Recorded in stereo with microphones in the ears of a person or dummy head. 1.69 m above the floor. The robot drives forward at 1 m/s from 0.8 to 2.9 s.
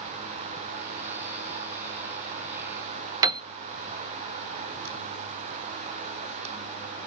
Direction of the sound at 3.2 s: 20° right (ahead or behind).